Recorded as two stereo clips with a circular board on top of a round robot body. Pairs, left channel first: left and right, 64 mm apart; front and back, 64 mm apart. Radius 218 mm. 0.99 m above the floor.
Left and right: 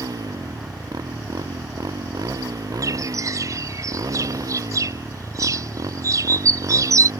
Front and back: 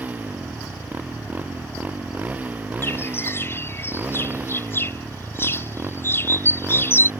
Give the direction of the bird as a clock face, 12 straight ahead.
2 o'clock.